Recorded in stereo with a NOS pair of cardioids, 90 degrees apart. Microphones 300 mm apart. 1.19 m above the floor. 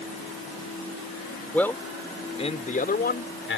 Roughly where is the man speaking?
Ahead.